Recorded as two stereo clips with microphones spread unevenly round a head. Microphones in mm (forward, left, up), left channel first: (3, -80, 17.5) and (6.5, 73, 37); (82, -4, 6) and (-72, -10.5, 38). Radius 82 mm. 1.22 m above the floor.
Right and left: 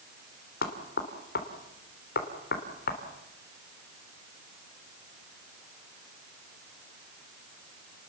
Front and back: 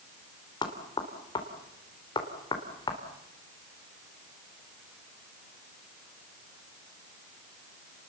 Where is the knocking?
65° right, 3 m.